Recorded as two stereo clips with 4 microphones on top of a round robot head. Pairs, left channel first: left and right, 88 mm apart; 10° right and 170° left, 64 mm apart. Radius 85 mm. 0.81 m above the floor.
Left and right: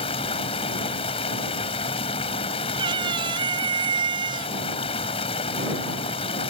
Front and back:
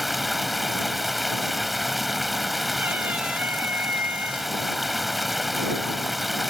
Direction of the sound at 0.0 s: 80° left.